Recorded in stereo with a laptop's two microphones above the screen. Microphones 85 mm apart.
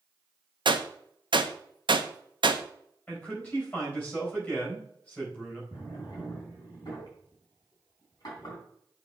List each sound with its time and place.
0.7 s a gunshot: 70° right (ahead or behind), 0.6 m
3.1 s a man speaking: 25° left (ahead or behind), 4 m
5.7 s a drawer: 50° left (ahead or behind), 3.5 m